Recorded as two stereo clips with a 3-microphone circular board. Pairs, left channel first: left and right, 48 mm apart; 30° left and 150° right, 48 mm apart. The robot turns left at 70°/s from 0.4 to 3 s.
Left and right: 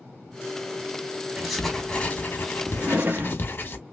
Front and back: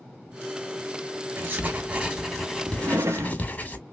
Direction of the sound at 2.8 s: 125° right.